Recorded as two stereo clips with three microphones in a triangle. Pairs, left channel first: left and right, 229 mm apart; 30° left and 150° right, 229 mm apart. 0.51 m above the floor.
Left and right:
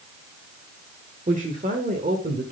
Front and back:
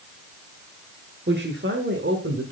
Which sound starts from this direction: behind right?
A woman speaking, at 1.3 s.